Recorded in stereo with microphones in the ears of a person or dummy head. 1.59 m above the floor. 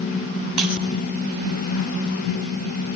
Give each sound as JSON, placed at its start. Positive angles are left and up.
{"t": 0.6, "sound": "breaking glass", "side_deg": -5, "distance_m": 7.5}